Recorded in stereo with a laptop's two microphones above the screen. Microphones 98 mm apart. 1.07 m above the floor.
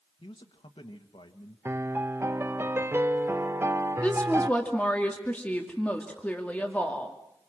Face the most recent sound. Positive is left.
turn(degrees=15)  # may be behind; listen again after turning